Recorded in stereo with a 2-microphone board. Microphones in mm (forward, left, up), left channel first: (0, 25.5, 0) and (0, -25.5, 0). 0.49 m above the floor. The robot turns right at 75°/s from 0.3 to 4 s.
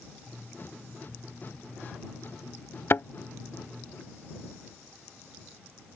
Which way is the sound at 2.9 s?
55° left (ahead or behind).